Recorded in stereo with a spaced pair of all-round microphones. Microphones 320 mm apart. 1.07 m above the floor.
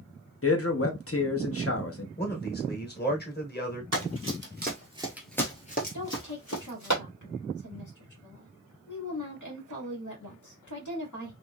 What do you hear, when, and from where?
0.4 s a man speaking: 45° left (ahead or behind), 0.8 m
2.2 s a man speaking: 30° left (ahead or behind), 1.1 m
3.9 s running footsteps: 50° right (ahead or behind), 1.7 m; by 6.9 s 60° left (ahead or behind), 1.9 m
5.9 s a woman speaking: 65° left (ahead or behind), 1.7 m